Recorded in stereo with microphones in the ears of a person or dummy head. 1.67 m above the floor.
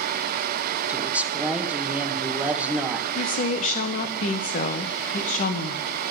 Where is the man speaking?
Centre (ahead or behind), 1.4 m.